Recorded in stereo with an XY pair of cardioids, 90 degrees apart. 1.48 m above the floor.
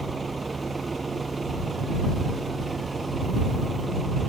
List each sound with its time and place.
0.0 s a vehicle: 30° right